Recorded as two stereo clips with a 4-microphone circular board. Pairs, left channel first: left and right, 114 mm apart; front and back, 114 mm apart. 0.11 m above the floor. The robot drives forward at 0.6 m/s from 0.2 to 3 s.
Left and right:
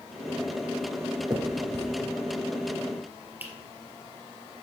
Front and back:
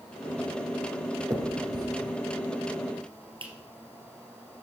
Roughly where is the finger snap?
Behind right.